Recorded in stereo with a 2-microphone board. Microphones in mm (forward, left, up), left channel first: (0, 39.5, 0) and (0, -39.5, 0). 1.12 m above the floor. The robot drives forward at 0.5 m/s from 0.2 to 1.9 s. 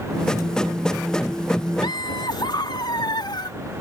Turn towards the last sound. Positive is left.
turn(degrees=80)